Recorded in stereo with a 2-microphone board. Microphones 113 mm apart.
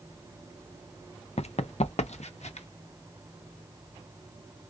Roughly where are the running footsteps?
Left.